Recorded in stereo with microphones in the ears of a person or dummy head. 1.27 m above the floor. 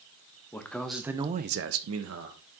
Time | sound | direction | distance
0.5 | a man speaking | 15° left (ahead or behind) | 1.4 m